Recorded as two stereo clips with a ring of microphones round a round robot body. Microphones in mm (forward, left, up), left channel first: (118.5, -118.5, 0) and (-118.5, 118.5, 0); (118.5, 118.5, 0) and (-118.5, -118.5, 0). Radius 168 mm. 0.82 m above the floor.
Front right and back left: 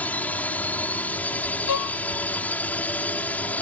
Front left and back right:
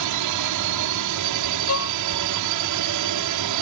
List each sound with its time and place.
0.0 s a drone: 130° right
1.7 s a violin: 5° right